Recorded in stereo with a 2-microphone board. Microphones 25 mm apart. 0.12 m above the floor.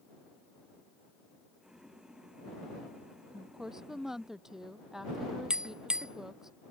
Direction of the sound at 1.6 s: 30° right (ahead or behind).